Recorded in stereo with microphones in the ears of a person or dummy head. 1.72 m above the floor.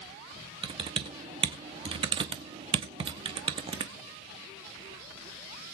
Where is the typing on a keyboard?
30° right (ahead or behind), 1.1 m.